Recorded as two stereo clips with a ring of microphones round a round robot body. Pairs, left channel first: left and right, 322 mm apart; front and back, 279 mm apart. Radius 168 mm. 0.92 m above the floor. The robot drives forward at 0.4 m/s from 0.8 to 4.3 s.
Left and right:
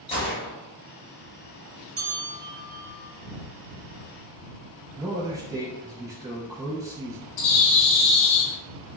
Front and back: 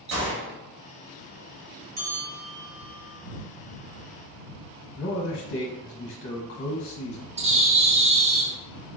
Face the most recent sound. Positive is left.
turn(degrees=110)